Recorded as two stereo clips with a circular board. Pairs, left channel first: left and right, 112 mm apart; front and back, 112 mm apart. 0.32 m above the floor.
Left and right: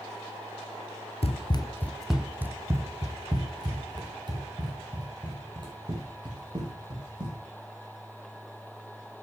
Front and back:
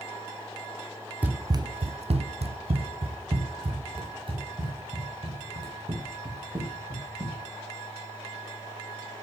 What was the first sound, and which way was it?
Running footsteps, 105° left.